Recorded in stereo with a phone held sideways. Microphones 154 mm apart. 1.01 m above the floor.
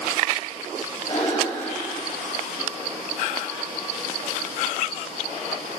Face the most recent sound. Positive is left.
turn(degrees=45)  # may be behind; listen again after turning